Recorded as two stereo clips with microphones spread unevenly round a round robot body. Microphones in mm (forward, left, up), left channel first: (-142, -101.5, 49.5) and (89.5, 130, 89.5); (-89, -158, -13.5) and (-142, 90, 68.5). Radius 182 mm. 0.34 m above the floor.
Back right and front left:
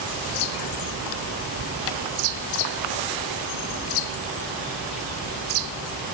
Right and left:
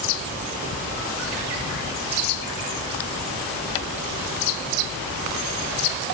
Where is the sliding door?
No sliding door in this recording.